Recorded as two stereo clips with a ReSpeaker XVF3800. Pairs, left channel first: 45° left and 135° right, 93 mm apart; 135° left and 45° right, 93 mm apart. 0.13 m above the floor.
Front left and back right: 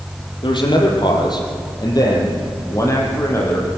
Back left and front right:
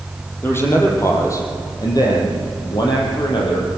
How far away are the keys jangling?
No keys jangling in this recording.